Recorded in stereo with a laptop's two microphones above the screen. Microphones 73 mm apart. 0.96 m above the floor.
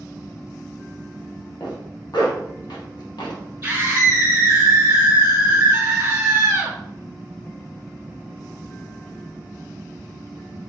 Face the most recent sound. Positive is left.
turn(degrees=-25)  # may be behind; listen again after turning